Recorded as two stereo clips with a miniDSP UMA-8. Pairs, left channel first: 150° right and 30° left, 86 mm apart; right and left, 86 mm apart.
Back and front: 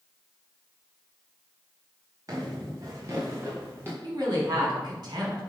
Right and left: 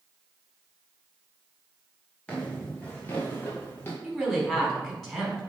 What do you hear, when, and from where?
2.3 s footsteps: 15° right, 3.5 m; by 3.9 s 30° right, 2.5 m
4.0 s a woman speaking: straight ahead, 4 m